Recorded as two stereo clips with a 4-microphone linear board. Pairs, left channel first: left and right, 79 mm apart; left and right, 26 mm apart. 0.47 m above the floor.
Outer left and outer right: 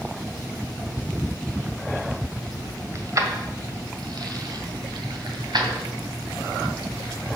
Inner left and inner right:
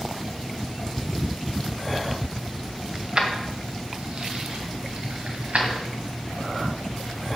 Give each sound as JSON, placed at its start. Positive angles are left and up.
{"t": 3.0, "sound": "keys jangling", "side_deg": -40, "distance_m": 1.7}